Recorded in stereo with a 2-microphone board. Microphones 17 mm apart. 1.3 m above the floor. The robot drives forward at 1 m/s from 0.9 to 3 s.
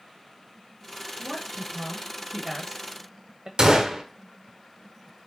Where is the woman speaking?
5° right (ahead or behind), 2 m; by 3.5 s 35° right (ahead or behind), 0.5 m.